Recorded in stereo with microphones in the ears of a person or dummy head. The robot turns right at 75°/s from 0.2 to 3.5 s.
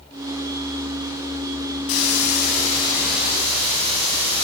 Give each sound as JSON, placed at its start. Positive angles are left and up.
{"t": 1.9, "sound": "a hiss", "azimuth_deg": 85, "distance_m": 4.0}